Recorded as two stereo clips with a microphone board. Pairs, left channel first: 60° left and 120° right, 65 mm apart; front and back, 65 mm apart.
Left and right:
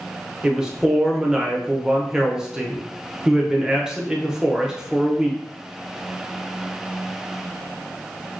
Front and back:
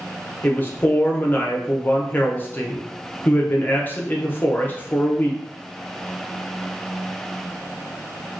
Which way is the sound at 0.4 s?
45° right.